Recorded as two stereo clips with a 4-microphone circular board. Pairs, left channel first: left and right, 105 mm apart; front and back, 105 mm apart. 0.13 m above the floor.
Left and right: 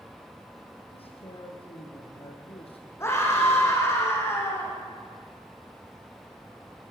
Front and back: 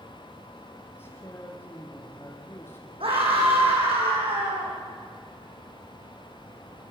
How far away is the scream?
About 7.5 m.